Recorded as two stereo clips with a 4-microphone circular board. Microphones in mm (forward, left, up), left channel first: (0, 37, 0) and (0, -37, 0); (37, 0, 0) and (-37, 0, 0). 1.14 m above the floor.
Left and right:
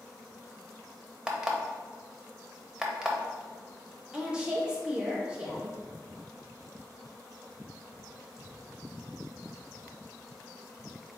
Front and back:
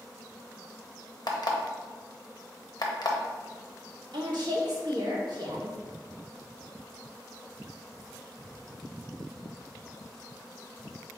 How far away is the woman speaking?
About 1.1 m.